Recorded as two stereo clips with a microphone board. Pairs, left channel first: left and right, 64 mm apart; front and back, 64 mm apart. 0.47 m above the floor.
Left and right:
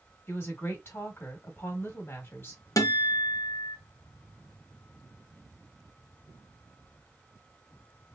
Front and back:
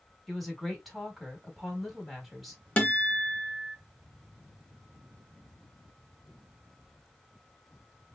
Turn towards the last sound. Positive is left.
turn(degrees=70)